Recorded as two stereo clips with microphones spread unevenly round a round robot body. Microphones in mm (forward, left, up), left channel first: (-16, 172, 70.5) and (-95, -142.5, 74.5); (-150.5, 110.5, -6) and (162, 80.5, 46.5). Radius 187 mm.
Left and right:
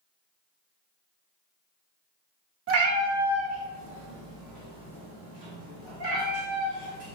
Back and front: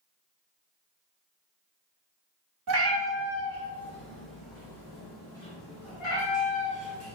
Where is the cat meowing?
55° right, 0.7 m; by 7.2 s 110° right, 3.5 m.